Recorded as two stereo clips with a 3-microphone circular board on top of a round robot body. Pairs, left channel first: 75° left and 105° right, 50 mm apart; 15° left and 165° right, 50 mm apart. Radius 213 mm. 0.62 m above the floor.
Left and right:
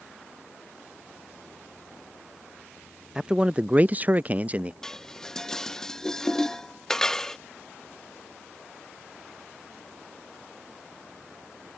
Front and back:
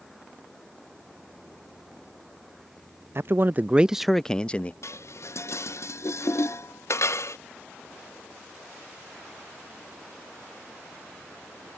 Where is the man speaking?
Straight behind; by 4.7 s 45° right.